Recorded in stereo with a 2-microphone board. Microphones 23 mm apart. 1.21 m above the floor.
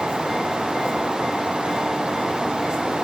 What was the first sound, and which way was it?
Only background noise.